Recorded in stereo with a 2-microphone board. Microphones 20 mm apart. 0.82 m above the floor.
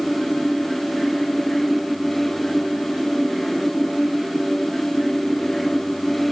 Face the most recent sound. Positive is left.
No sound to turn to.